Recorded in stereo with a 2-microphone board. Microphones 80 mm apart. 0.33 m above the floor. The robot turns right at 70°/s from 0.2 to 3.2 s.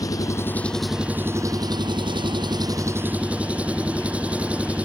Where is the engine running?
135° left; by 4.8 s 15° right.